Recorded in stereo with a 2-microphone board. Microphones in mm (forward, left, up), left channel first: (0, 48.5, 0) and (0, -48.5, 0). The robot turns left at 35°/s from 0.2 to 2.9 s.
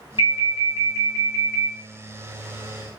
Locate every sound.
0.2 s an alarm: 85° left, 1.0 m; by 1.7 s 35° left, 1.0 m